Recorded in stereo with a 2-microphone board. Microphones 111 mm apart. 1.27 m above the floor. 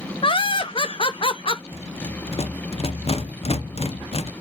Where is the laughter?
50° left (ahead or behind), 0.7 m.